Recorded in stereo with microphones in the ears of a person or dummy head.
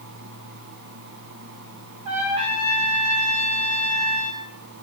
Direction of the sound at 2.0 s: 30° right (ahead or behind).